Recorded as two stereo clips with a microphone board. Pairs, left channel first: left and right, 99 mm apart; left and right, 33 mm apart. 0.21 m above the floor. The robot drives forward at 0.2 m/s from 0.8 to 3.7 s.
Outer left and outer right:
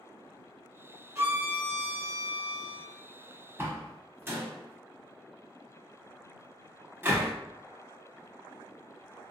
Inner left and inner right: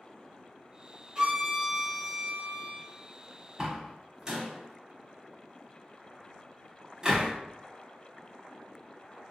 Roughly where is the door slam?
Right.